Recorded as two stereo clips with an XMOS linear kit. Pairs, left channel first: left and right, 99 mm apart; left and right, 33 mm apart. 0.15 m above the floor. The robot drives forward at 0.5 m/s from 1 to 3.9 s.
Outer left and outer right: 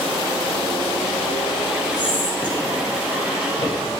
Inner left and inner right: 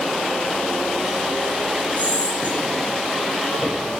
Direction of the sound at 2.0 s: 50° left (ahead or behind).